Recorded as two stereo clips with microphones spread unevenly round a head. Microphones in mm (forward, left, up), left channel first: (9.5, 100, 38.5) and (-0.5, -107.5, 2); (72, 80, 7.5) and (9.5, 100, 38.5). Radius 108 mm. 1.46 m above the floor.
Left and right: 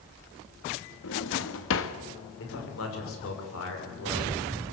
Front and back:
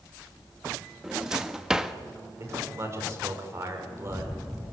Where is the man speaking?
115° left, 5.5 m.